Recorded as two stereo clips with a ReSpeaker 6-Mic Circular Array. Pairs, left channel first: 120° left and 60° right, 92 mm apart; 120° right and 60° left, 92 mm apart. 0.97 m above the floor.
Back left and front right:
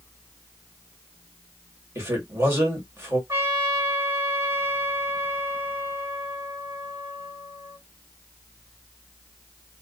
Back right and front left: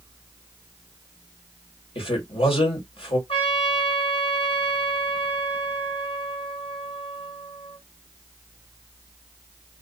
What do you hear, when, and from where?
1.9 s a man speaking: 125° right, 2 m
3.3 s a trumpet: 120° right, 2.0 m